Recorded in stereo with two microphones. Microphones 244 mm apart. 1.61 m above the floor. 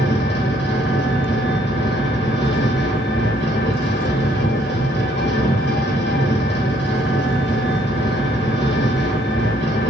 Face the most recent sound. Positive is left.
turn(degrees=45)  # may be behind; listen again after turning